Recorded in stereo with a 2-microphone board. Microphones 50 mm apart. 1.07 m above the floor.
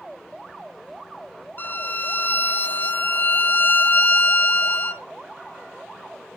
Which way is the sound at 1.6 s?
45° left (ahead or behind).